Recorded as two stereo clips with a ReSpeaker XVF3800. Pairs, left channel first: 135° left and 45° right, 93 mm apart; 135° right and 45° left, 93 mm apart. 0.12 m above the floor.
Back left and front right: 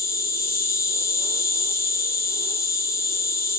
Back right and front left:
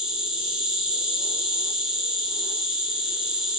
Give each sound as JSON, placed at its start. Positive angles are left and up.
{"t": 0.0, "sound": "an insect", "azimuth_deg": 125, "distance_m": 0.9}